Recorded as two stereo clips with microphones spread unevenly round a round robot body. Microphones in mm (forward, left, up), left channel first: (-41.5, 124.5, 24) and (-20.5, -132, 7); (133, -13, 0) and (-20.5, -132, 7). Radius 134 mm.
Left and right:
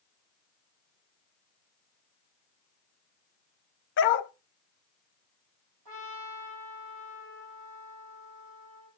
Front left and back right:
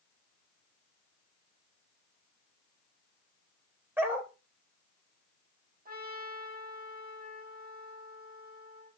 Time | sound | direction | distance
4.0 | a dog barking | 135° left | 0.7 m
5.8 | a trumpet | 100° right | 5.5 m